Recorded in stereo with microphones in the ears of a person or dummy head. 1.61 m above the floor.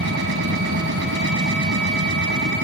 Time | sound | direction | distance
0.0 | a machine running | 60° right (ahead or behind) | ?